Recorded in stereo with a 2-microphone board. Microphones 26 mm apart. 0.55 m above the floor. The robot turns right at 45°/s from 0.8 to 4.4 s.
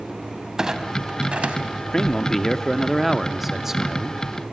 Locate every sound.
0.6 s a clunk: 25° right (ahead or behind), 1.3 m; by 1.6 s 65° right (ahead or behind), 1.3 m
1.9 s a man speaking: 125° left, 0.7 m; by 4.2 s 130° right, 0.7 m